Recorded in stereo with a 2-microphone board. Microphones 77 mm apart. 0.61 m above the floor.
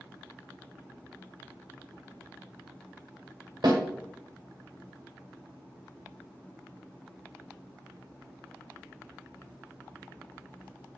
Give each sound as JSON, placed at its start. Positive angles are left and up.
{"t": 3.6, "sound": "a snare drum", "side_deg": -65, "distance_m": 1.3}